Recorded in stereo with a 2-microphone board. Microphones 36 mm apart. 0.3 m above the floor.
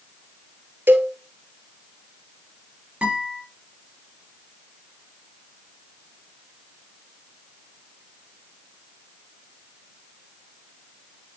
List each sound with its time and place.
0.9 s a cowbell: 70° right (ahead or behind), 1.5 m
3.0 s a guitar: 30° right (ahead or behind), 5.5 m